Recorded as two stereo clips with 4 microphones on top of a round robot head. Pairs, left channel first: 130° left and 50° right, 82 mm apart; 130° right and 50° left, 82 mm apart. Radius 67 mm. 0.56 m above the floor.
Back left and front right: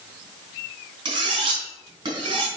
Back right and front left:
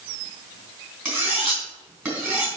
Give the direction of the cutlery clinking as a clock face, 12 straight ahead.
12 o'clock.